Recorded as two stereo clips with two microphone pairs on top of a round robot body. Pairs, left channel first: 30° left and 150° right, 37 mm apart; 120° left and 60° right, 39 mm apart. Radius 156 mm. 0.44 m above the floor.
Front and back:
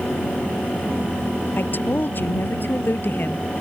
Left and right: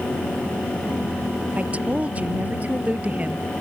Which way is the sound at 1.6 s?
5° right.